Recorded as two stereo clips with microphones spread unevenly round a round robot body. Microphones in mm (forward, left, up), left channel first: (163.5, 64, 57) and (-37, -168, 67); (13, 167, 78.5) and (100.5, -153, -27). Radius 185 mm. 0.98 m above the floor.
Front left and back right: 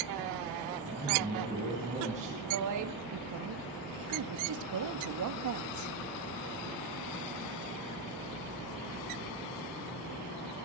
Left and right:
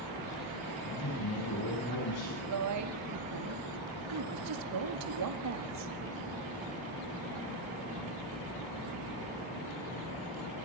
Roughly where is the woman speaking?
Right.